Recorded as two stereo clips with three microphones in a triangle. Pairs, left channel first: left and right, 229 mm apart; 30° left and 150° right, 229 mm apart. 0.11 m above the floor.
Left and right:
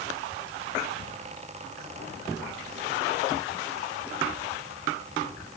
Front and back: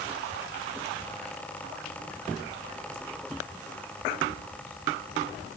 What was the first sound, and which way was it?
Only background noise.